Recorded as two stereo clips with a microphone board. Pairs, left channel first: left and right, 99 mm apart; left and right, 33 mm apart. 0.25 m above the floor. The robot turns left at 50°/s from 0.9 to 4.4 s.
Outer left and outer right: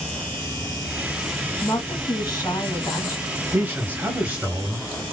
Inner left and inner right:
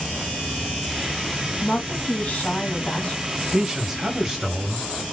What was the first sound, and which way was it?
A woman speaking, 135° left.